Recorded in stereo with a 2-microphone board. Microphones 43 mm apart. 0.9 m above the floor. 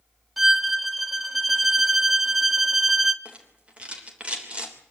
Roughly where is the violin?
Centre.